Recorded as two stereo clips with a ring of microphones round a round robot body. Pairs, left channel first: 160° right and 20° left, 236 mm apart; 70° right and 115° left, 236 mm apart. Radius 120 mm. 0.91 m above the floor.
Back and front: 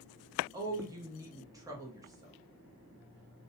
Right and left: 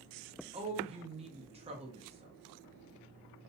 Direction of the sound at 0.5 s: 85° left.